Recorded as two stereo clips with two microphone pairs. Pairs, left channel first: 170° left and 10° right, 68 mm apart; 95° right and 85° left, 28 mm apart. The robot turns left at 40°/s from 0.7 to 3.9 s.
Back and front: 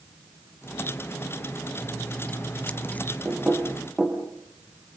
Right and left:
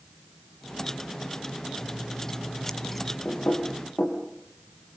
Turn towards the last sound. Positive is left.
turn(degrees=-90)